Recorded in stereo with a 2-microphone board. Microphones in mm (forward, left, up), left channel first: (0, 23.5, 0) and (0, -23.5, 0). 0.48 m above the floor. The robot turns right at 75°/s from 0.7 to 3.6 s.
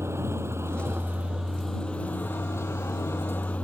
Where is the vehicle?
70° right; by 3.6 s 150° left.